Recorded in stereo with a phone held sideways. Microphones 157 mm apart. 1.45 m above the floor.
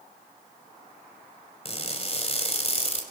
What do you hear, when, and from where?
1.6 s crushing: 40° left (ahead or behind), 3.5 m